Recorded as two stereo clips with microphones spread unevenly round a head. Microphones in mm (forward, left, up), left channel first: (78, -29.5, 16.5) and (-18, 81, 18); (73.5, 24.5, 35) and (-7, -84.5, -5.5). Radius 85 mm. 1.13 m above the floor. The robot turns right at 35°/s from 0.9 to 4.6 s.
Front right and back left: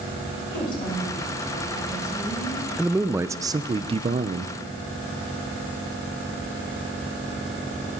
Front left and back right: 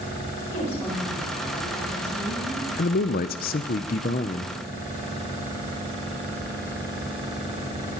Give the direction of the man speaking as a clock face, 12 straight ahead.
10 o'clock.